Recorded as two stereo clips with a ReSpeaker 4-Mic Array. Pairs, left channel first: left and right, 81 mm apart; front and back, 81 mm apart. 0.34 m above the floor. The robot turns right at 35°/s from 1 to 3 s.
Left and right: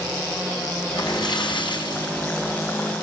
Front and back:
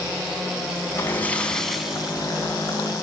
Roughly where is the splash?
Ahead left.